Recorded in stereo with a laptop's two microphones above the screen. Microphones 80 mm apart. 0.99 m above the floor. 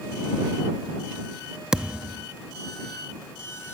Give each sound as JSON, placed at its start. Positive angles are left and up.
{"t": 1.7, "sound": "a thud", "side_deg": -10}